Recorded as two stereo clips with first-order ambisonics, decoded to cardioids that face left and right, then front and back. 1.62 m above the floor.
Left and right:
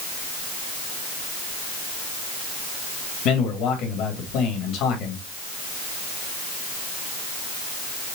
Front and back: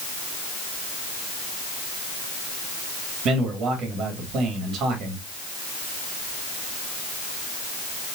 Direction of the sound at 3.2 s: 125° left.